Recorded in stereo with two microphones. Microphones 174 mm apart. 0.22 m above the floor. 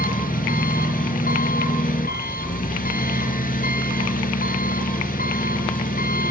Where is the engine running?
55° left (ahead or behind), 1.6 m.